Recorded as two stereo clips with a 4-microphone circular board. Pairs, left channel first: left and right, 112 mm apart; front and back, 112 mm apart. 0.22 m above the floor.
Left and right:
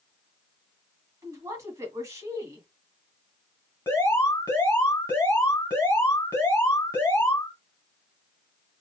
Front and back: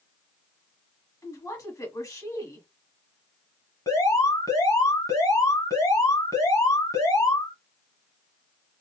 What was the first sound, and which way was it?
A woman speaking, 45° right.